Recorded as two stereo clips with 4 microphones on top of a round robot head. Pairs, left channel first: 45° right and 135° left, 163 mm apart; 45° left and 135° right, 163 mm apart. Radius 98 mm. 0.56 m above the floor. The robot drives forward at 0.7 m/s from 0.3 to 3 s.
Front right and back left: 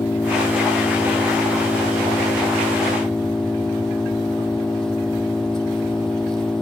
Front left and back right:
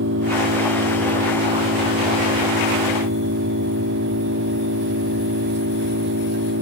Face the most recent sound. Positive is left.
turn(degrees=-130)